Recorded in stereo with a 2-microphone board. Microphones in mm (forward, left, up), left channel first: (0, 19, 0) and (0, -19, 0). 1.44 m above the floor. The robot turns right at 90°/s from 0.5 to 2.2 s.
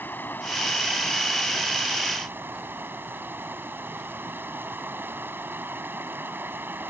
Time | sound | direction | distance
0.0 | running water | 110° left | ?